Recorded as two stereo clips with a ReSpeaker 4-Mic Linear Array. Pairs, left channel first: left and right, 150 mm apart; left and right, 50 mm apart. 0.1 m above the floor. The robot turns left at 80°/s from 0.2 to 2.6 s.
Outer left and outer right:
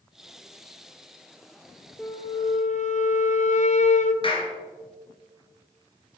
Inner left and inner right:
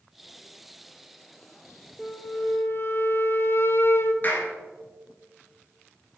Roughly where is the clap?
Left.